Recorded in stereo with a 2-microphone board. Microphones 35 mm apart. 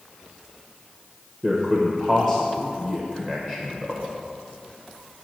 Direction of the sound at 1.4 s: 20° right (ahead or behind).